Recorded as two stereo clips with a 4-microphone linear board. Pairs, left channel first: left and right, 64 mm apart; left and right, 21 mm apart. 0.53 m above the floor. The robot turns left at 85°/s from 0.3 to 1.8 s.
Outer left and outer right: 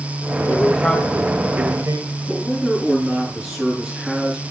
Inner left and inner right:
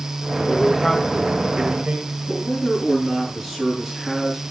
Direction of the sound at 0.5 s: 50° left (ahead or behind).